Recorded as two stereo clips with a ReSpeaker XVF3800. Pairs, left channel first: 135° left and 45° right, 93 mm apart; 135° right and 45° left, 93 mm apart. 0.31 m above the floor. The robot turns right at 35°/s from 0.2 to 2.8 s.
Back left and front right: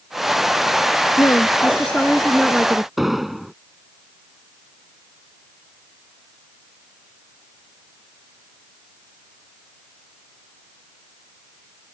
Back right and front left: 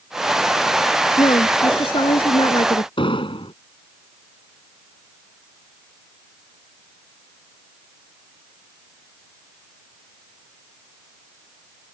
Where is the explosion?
130° right.